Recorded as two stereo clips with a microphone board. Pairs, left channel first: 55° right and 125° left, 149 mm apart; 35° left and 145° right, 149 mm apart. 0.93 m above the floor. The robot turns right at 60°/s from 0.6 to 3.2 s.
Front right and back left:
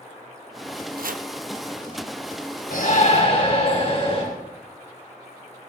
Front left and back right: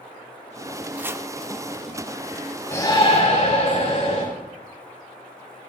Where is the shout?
30° right, 3.5 m; by 4.2 s straight ahead, 3.5 m.